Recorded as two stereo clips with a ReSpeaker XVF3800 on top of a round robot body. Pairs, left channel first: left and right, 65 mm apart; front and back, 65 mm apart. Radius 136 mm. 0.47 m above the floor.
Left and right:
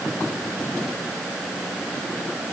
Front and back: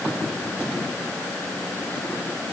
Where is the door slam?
No door slam in this recording.